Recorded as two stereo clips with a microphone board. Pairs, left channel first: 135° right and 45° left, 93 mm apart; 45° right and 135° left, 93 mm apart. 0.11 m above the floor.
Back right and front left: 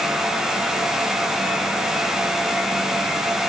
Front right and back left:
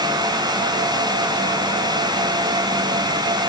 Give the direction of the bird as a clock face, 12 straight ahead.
No bird in this recording.